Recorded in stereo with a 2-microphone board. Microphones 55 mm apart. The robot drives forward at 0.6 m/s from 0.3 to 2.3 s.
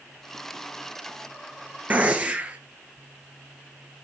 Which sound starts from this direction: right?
A gunshot, at 1.9 s.